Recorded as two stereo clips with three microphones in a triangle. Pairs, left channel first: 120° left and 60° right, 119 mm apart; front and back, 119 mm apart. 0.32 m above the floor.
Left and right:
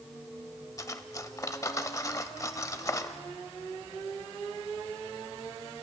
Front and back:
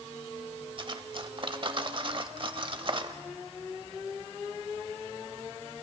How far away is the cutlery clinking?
About 0.8 m.